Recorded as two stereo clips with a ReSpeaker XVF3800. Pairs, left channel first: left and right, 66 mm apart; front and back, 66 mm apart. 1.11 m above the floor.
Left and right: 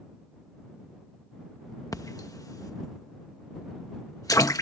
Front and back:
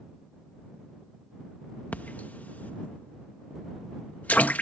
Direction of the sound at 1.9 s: 65° left.